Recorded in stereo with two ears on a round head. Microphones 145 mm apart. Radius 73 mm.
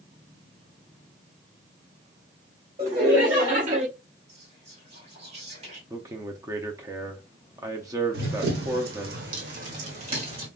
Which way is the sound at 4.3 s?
40° right (ahead or behind).